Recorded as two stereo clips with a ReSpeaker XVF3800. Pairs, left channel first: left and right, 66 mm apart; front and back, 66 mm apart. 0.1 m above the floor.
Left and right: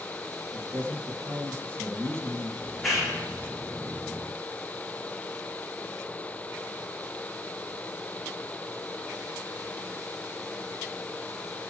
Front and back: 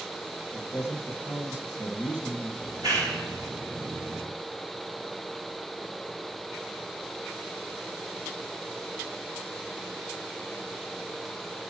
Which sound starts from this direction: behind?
A clap, at 2.6 s.